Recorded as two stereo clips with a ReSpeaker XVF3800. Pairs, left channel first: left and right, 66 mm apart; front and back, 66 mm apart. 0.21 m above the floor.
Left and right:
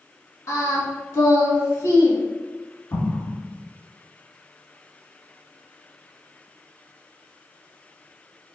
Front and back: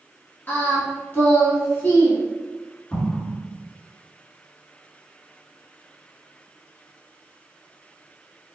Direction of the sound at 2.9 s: 65° left.